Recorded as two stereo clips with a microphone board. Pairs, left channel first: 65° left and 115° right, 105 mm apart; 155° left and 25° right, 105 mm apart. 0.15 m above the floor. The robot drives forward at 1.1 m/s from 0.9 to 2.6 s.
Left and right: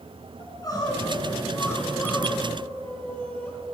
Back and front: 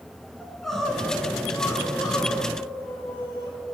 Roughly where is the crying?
Left.